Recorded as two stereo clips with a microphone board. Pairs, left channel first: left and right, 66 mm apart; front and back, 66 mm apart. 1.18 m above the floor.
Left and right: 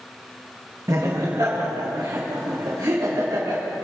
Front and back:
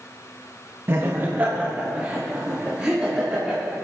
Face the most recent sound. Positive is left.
turn(degrees=-100)